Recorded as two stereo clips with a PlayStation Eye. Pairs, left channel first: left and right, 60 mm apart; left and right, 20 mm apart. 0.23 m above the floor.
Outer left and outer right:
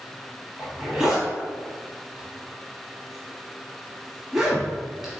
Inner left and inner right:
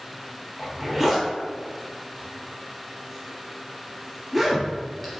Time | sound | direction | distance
0.6 | a zipper | 10° right (ahead or behind) | 0.9 m